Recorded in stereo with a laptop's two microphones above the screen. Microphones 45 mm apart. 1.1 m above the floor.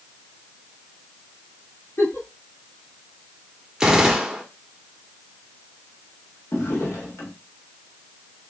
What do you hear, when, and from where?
2.0 s a giggle: 70° left (ahead or behind), 3 m
3.8 s a gunshot: 15° right (ahead or behind), 1.0 m
6.5 s a drawer: 75° left (ahead or behind), 1.2 m